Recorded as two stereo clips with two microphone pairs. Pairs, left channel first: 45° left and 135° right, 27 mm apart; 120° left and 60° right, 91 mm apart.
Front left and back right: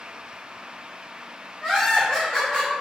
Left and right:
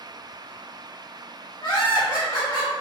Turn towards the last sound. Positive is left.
turn(degrees=85)